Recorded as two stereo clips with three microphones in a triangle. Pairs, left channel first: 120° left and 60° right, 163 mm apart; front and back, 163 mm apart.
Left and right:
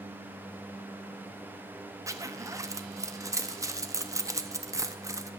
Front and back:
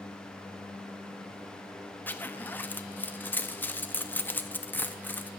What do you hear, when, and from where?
2.1 s a zipper: 55° right, 0.7 m